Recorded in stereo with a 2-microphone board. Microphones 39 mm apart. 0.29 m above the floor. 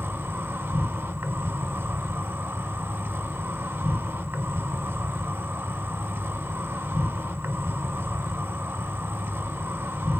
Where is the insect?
70° right (ahead or behind), 0.9 m.